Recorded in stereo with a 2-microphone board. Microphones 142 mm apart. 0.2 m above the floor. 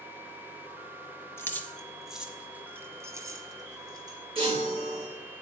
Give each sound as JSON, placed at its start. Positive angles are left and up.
{"t": 1.4, "sound": "keys jangling", "side_deg": 20, "distance_m": 1.0}
{"t": 4.3, "sound": "a chime", "side_deg": -40, "distance_m": 6.0}